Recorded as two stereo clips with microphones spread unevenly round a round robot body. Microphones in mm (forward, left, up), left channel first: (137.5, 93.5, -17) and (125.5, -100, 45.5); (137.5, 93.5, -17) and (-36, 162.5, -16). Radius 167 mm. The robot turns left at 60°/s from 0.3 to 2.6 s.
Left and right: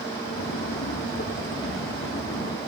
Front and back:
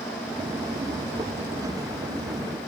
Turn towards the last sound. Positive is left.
No sound to turn to.